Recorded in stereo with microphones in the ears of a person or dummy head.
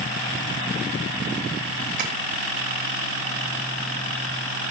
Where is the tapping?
45° right (ahead or behind), 1.5 m.